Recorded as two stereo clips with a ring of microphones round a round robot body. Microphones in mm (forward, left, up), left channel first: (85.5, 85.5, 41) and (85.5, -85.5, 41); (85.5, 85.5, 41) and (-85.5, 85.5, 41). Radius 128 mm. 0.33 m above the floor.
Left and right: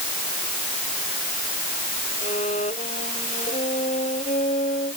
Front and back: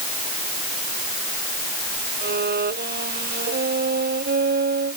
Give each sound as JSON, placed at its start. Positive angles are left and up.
{"t": 2.2, "sound": "a violin", "azimuth_deg": 155}